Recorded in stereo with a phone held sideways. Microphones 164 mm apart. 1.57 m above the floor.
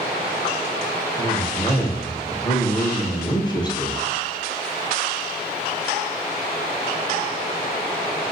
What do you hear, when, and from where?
1.2 s a man speaking: 25° left (ahead or behind), 0.9 m